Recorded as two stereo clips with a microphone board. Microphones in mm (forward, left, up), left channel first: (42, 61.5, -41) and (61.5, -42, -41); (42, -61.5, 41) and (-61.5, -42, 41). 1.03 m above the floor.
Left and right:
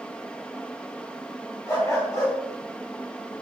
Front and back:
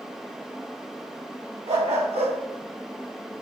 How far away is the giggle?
No giggle in this recording.